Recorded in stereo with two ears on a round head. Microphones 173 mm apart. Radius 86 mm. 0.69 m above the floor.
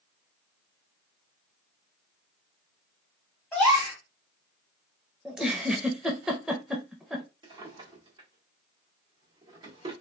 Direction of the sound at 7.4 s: 25° right (ahead or behind).